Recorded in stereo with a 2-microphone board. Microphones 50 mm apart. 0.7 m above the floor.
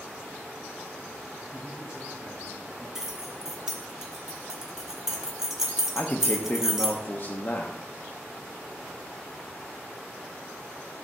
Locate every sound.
1.5 s a man speaking: 25° right (ahead or behind), 2.5 m; by 2.9 s 15° right (ahead or behind), 3.5 m
3.0 s keys jangling: 10° right (ahead or behind), 1.0 m
6.0 s a man speaking: 35° left (ahead or behind), 0.7 m